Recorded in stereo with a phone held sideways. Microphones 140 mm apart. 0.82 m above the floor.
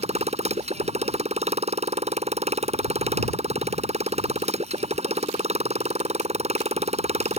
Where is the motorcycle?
55° right (ahead or behind).